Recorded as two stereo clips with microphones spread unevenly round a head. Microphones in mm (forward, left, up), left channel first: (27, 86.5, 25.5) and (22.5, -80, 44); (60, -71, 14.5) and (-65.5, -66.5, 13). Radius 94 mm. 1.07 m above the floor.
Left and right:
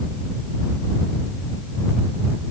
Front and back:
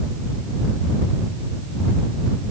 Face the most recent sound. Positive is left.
No sound to turn to.